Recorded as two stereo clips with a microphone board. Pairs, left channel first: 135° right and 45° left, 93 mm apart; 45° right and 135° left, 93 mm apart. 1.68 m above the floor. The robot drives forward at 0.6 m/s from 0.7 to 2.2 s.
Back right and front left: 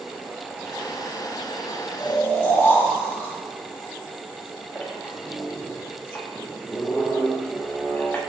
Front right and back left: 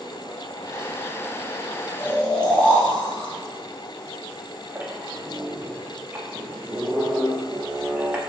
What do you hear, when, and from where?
2.0 s snoring: 85° right, 1.0 m; by 3.3 s 100° right, 1.0 m
4.8 s a squeak: straight behind, 0.7 m